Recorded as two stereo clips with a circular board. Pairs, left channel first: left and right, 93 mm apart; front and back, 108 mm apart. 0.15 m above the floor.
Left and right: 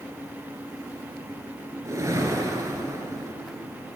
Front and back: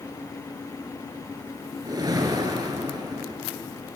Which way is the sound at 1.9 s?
135° right.